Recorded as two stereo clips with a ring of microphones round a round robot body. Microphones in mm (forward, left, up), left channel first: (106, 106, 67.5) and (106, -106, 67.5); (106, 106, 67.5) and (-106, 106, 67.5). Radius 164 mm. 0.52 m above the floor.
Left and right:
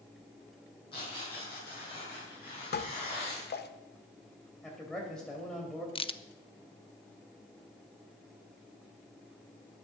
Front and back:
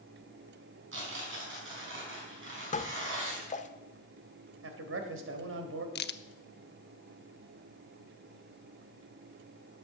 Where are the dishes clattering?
55° left, 1.1 m.